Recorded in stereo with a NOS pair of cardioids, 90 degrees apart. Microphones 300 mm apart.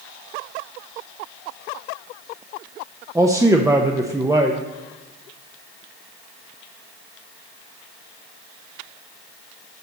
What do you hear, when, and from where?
3.1 s a man speaking: 10° right, 0.8 m